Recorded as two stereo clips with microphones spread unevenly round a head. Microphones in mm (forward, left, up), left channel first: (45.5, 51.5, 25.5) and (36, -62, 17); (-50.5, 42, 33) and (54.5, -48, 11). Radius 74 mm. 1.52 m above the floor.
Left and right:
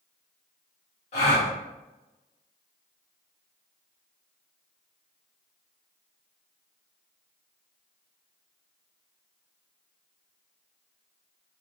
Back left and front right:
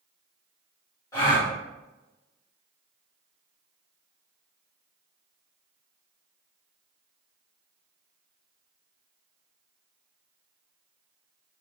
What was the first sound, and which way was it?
A gasp, 75° left.